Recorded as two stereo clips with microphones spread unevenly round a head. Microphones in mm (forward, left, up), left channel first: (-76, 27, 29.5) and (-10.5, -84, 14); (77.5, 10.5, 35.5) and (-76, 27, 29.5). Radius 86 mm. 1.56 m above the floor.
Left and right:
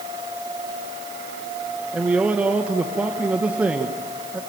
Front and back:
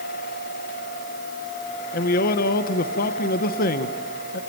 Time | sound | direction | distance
1.9 | a man speaking | 25° left | 1.4 m